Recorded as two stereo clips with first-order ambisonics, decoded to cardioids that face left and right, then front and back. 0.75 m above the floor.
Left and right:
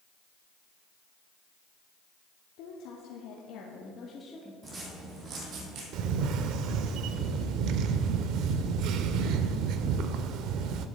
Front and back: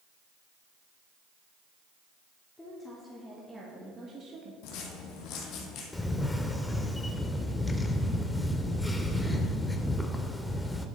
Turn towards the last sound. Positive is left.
turn(degrees=-80)